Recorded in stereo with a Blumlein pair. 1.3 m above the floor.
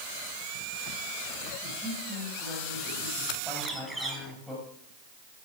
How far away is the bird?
About 3.5 m.